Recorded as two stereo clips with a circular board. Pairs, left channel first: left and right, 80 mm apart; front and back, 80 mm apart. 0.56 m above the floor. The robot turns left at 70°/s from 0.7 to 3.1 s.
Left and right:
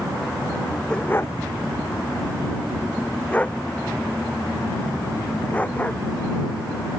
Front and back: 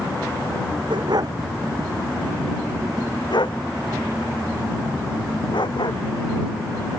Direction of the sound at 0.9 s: 170° left.